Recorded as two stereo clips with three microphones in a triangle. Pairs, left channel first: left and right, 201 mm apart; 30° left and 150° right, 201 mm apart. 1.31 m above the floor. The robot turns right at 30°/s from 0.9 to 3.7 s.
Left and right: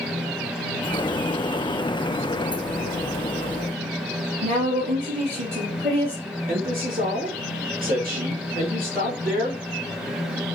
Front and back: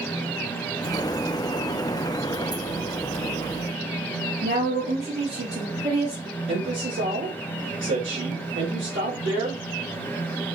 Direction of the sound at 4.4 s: 125° right.